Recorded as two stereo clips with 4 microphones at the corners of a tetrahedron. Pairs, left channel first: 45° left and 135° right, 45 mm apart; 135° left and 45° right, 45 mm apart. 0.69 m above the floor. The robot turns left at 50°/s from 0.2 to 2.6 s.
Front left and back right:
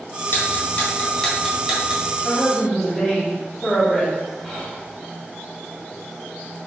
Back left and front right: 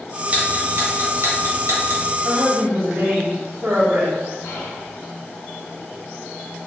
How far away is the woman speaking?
About 1.5 m.